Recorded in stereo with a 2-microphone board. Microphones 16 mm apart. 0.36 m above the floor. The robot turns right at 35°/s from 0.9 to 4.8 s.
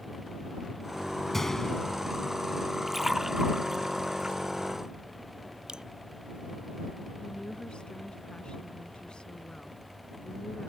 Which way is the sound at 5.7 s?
60° right (ahead or behind).